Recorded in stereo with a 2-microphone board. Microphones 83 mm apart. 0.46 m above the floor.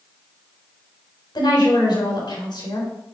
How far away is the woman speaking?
About 3.5 m.